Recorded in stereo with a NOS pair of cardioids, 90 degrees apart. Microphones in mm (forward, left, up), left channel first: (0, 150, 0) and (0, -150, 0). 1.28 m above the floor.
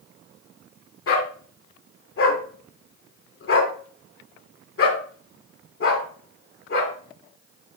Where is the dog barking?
50° left, 3.5 m.